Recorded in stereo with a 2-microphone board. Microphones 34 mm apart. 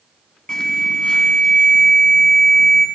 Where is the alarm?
20° left (ahead or behind), 3.5 m.